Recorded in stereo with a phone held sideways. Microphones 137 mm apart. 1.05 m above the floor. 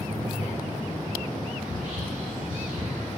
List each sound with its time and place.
1.6 s whispering: 85° right, 3 m